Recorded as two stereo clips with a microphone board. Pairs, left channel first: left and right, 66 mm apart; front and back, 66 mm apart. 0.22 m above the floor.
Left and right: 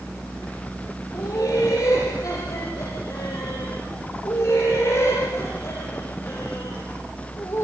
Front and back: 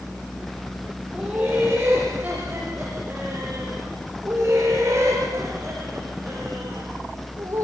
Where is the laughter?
110° left, 8 m; by 7.7 s 135° left, 9.5 m.